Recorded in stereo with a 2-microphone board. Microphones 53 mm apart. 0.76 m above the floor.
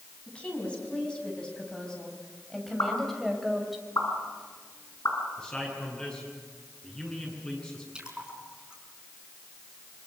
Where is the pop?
70° left (ahead or behind), 7.5 m.